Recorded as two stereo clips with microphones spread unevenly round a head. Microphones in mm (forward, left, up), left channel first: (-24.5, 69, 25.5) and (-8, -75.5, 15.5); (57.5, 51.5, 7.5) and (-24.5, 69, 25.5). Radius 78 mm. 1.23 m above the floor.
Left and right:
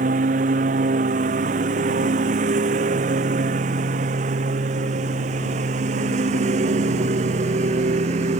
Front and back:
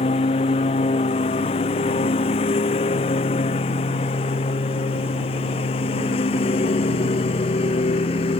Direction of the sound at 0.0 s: 40° right.